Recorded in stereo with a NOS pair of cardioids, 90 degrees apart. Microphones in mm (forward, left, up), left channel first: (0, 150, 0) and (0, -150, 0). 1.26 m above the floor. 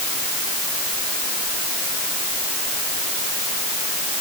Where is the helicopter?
No helicopter in this recording.